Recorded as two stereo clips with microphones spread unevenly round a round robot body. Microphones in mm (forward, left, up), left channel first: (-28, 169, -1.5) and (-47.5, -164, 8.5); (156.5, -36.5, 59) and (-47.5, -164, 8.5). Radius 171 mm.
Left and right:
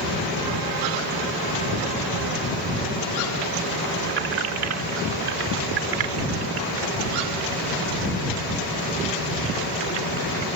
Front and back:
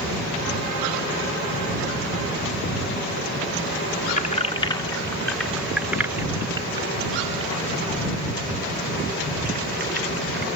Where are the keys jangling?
30° right; by 10.5 s 100° right.